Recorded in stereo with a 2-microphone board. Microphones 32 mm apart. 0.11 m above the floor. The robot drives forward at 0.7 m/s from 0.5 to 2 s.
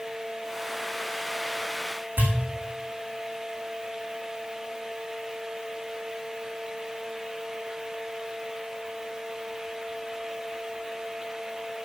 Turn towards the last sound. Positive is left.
turn(degrees=-80)